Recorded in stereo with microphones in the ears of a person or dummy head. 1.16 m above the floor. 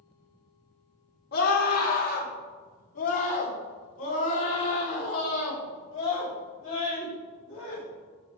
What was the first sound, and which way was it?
A scream, 50° left (ahead or behind).